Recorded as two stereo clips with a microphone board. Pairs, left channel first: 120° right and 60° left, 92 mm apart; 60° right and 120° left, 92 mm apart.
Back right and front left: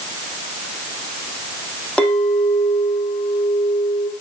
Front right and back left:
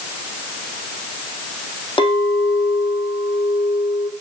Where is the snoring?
No snoring in this recording.